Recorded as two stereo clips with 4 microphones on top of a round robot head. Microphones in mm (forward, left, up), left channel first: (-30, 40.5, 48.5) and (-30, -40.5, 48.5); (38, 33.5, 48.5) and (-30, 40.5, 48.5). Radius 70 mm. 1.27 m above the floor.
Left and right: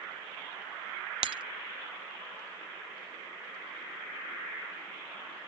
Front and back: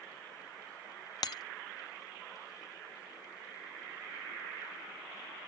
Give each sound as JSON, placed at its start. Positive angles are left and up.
{"t": 1.2, "sound": "breaking glass", "azimuth_deg": -55}